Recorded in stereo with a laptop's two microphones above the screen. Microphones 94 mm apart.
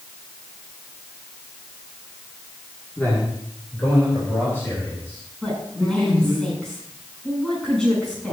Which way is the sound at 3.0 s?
20° left (ahead or behind).